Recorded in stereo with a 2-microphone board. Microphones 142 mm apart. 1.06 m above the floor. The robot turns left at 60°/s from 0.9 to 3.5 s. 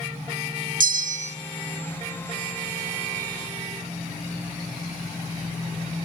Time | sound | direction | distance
0.8 | a bell | 75° right (ahead or behind) | 0.6 m